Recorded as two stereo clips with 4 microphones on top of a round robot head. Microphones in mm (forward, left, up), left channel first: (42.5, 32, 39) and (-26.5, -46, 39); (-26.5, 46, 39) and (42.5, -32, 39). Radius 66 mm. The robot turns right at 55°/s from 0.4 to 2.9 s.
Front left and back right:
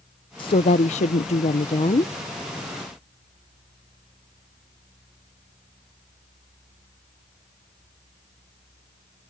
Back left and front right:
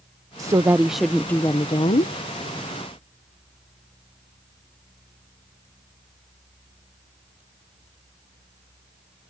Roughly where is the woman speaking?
Ahead.